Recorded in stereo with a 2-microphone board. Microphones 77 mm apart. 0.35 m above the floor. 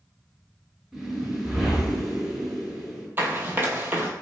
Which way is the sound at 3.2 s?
30° right (ahead or behind).